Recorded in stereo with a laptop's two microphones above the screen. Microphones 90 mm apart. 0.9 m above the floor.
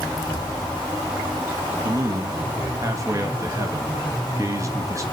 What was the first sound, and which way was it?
A man speaking, 35° right (ahead or behind).